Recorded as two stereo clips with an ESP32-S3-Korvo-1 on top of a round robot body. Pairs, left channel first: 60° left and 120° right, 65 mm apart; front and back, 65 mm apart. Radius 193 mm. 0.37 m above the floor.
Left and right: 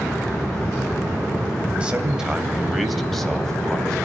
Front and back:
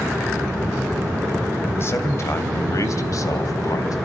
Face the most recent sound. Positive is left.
turn(degrees=-15)